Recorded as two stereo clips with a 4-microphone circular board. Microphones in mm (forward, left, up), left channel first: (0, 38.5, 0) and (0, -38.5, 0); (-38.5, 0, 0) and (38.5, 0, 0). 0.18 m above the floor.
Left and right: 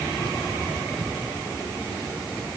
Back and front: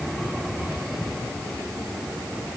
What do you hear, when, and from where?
Only background noise.